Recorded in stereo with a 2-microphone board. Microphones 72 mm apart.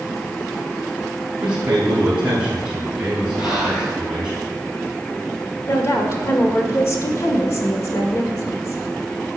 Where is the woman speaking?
45° left (ahead or behind), 1.6 m.